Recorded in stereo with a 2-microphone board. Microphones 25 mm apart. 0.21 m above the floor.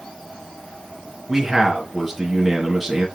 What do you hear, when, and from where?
1.3 s a man speaking: 5° right (ahead or behind), 2.5 m